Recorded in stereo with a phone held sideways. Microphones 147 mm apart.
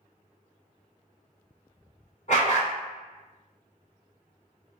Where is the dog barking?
50° left (ahead or behind), 1.5 m.